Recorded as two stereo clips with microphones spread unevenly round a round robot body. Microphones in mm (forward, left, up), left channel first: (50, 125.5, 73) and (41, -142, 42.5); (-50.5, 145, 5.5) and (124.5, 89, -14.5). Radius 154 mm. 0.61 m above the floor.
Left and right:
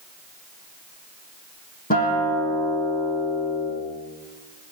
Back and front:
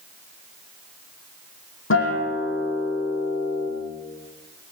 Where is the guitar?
150° left, 9.5 m.